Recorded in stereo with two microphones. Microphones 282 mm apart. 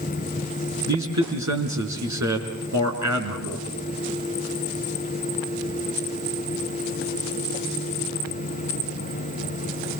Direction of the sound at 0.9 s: 70° right (ahead or behind).